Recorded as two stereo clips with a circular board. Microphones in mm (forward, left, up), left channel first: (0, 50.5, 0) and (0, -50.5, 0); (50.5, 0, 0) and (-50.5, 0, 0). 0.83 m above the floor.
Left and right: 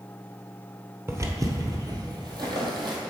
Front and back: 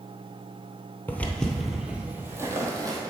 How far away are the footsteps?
About 0.9 m.